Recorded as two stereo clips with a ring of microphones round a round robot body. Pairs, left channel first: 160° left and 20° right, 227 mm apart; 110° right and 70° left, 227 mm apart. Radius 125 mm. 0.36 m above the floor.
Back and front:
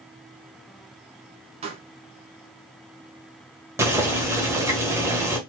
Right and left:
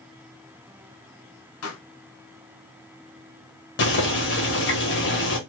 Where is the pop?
85° right, 1.3 m.